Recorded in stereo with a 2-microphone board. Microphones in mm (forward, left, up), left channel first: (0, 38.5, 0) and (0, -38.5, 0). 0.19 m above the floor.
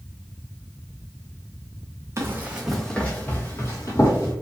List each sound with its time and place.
2.2 s running footsteps: 35° right (ahead or behind), 0.6 m; by 4.3 s 45° left (ahead or behind), 1.3 m